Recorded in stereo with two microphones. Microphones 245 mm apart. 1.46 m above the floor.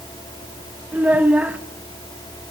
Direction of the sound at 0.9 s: 5° right (ahead or behind).